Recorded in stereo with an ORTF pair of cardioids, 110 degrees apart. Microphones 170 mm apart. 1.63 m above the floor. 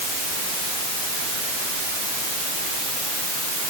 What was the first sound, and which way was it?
Only background noise.